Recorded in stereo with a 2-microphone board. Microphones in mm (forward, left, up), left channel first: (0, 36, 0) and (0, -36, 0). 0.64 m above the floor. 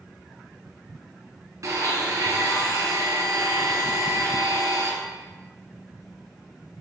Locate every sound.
1.6 s a blender: 55° right (ahead or behind), 1.2 m